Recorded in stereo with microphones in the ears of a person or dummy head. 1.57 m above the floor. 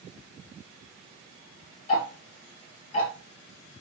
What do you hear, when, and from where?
1.9 s ticking: 30° left (ahead or behind), 1.1 m